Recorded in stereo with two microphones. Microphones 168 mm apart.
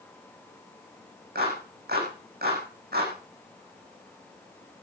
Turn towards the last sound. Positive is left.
turn(degrees=-70)  # may be behind; listen again after turning